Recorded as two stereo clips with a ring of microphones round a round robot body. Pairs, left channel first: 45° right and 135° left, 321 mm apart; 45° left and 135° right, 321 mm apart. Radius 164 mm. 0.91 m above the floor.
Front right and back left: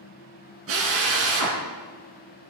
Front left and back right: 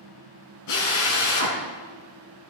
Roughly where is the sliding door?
No sliding door in this recording.